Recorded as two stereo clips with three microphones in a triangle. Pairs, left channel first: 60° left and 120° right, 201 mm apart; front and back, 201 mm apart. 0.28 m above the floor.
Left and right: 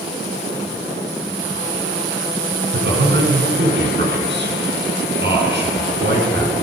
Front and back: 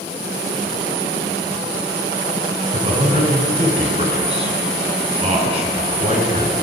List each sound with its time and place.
2.7 s a man speaking: 125° right, 2.5 m